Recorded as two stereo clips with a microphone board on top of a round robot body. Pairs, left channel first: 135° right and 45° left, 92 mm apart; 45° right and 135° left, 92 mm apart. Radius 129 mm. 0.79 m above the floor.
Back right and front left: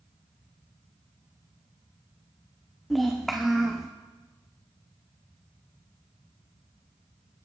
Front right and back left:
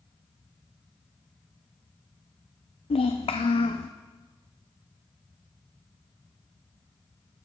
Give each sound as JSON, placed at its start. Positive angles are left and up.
{"t": 2.9, "sound": "a child speaking", "azimuth_deg": -45, "distance_m": 0.7}